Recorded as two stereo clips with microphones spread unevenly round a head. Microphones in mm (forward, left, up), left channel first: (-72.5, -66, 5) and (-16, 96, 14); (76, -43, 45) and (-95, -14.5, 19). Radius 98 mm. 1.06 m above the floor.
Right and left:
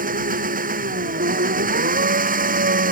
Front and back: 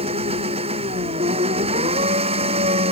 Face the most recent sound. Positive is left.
turn(degrees=110)